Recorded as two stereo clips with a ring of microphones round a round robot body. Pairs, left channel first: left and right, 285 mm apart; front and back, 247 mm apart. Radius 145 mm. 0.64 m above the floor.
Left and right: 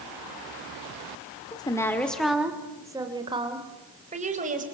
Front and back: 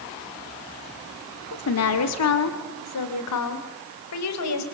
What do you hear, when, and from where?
1.5 s a woman speaking: 15° left, 1.8 m; by 4.6 s 25° right, 3.5 m